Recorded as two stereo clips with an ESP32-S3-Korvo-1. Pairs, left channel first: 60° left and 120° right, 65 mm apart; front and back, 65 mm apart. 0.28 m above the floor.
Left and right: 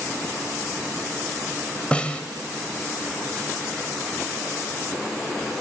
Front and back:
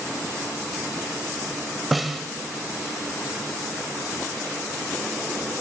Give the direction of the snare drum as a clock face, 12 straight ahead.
9 o'clock.